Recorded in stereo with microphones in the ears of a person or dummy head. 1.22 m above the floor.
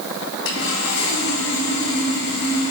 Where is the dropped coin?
No dropped coin in this recording.